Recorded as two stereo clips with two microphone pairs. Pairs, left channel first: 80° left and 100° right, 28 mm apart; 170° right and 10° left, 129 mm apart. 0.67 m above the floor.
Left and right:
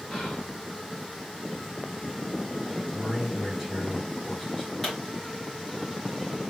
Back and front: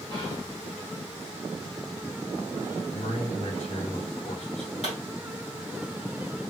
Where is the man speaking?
170° left, 2.5 m.